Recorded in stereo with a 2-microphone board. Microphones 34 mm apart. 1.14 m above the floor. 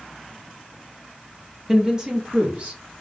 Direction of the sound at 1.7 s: 10° right (ahead or behind).